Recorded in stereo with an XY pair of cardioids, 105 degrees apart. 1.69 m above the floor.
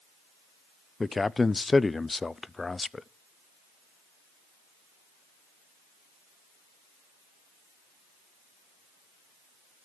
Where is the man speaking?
20° left, 0.6 m.